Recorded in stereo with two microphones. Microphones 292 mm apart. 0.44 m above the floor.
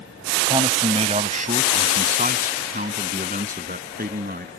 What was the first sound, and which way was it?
A man speaking, 20° right (ahead or behind).